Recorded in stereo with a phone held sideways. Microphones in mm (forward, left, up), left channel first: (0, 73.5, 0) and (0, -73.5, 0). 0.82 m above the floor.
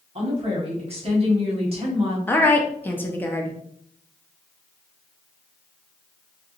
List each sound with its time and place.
0.1 s a woman speaking: 40° right (ahead or behind), 1.3 m
2.3 s a woman speaking: 15° left (ahead or behind), 0.6 m